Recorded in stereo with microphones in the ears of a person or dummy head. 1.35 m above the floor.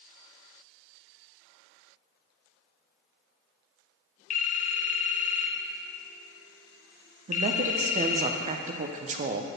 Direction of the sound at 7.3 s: 30° right (ahead or behind).